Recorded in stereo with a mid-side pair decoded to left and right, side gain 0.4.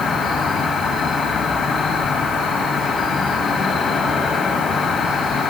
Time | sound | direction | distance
0.0 | an insect | 70° left | 1.6 m